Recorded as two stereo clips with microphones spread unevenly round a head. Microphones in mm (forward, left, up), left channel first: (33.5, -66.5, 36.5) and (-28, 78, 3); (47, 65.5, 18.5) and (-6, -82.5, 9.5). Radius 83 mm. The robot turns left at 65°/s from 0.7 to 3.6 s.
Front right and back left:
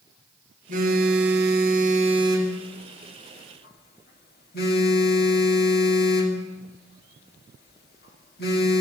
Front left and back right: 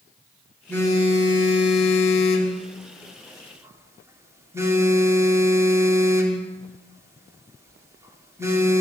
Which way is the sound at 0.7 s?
150° left.